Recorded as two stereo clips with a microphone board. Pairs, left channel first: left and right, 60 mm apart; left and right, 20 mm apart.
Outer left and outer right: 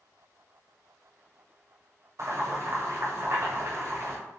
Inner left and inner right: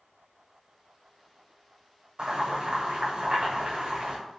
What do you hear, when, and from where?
2.2 s boiling: 55° right (ahead or behind), 1.3 m